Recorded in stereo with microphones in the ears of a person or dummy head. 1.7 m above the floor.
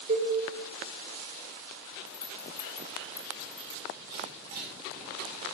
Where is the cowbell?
40° right (ahead or behind), 1.7 m.